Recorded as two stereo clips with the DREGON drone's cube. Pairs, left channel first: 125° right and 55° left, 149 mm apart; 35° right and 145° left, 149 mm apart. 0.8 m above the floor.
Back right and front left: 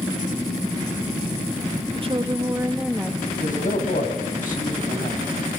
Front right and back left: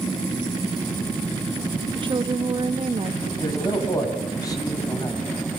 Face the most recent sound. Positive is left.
turn(degrees=-100)